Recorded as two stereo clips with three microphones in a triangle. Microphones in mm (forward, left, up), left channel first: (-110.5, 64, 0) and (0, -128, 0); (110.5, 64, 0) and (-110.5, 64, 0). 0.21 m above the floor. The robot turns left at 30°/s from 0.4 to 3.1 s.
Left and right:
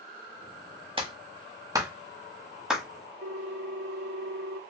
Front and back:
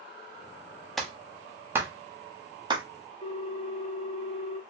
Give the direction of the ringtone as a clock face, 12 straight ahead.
2 o'clock.